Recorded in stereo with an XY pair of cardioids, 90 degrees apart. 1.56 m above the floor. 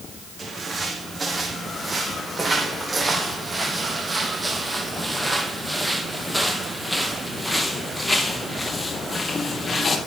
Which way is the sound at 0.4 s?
35° right.